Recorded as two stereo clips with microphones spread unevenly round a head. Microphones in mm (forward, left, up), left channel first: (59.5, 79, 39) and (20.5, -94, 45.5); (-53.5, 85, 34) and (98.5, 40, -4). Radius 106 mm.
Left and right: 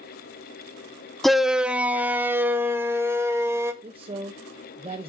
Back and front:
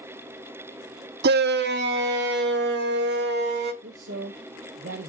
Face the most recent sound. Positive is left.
turn(degrees=-50)